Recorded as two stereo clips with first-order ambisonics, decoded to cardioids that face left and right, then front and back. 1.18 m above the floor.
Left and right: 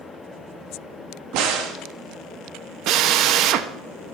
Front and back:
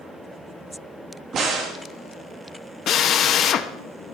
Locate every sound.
1.3 s a crack: 120° right, 1.7 m
2.9 s a drill: 55° right, 0.7 m